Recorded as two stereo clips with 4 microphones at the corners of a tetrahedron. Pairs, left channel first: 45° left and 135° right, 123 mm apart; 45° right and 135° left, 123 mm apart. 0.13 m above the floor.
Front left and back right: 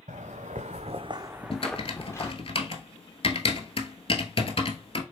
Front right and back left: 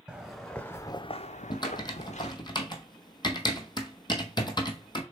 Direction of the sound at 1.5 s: 5° left.